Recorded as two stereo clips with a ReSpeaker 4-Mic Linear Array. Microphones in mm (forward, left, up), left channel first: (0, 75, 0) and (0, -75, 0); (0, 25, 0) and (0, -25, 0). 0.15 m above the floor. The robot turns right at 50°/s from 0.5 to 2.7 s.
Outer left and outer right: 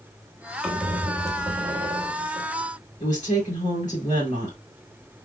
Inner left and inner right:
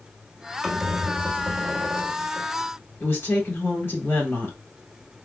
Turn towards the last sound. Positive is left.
turn(degrees=60)  # may be behind; listen again after turning